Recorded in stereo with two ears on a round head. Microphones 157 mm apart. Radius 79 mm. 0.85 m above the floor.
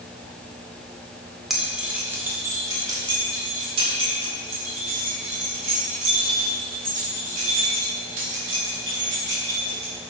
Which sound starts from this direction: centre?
Keys jangling, at 1.5 s.